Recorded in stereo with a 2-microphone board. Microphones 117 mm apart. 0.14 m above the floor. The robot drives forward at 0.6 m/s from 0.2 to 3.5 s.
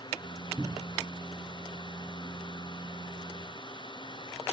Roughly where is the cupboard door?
Centre.